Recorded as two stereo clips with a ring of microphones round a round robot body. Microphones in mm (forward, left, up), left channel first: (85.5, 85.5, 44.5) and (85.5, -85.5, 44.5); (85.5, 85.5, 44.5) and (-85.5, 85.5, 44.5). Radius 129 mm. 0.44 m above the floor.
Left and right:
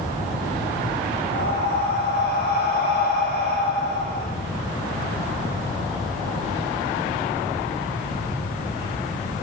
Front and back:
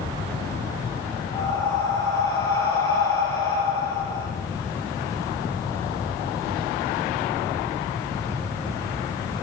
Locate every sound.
1.3 s breathing: 70° left, 4 m